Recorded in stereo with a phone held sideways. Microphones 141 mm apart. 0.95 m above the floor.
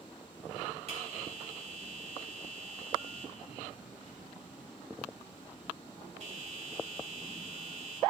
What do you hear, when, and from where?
0.9 s a bell: 50° right (ahead or behind), 3 m